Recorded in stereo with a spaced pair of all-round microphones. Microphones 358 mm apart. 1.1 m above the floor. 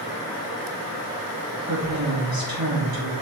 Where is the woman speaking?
65° right (ahead or behind), 3 m.